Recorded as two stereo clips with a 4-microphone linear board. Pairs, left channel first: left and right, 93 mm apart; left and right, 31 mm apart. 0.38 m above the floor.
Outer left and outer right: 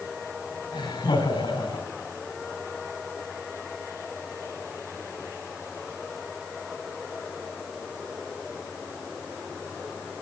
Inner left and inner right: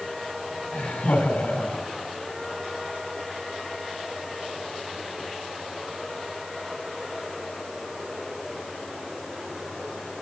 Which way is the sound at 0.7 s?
60° left (ahead or behind).